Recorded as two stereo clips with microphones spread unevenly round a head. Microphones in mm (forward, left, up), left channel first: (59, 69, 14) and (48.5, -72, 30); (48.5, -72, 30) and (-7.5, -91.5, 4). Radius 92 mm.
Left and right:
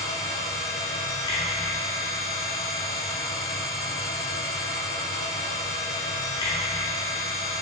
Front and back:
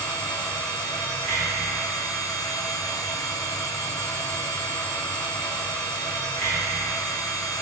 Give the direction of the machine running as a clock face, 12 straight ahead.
9 o'clock.